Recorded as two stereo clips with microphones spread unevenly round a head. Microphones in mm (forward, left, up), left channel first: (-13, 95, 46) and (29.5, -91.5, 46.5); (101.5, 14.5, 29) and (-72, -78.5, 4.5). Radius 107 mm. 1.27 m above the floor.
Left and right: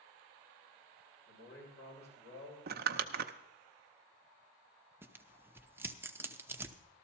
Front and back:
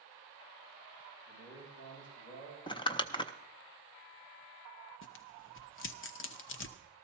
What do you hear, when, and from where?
1.3 s a man speaking: 85° left, 7.5 m
2.7 s crumpling: 35° right, 0.6 m
5.0 s tearing paper: straight ahead, 0.7 m